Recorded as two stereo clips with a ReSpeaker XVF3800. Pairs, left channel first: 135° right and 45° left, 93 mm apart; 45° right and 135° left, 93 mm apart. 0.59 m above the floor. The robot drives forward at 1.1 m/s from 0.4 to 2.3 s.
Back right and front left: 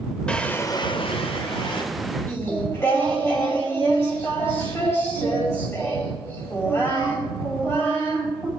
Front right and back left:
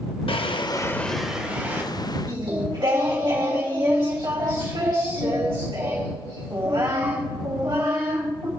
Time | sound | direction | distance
0.3 | a drawer | 55° right | 0.7 m
2.3 | singing | 165° left | 3 m